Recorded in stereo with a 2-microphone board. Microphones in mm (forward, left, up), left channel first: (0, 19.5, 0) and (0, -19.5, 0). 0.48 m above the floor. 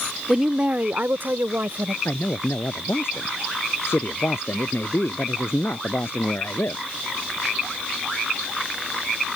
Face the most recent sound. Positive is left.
turn(degrees=80)